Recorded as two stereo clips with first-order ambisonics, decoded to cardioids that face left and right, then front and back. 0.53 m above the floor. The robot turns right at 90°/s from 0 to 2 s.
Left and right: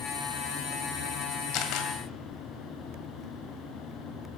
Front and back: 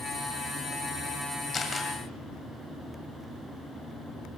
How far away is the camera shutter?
About 2 m.